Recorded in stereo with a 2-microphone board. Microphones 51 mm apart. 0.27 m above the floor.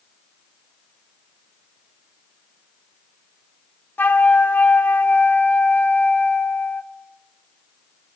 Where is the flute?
40° left (ahead or behind), 0.6 m.